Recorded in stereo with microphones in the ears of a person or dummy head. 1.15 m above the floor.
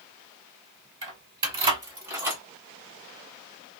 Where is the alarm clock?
No alarm clock in this recording.